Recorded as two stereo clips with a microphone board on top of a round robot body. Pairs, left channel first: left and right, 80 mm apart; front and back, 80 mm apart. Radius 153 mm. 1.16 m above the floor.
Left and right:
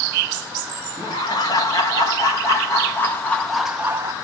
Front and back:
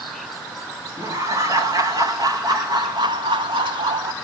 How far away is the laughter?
About 2.5 m.